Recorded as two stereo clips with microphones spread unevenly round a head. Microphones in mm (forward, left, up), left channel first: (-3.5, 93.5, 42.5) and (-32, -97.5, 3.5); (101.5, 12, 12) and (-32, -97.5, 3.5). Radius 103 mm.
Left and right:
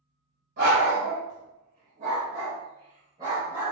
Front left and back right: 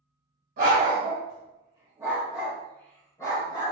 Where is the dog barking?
145° right, 1.6 m; by 3.7 s 10° right, 1.7 m.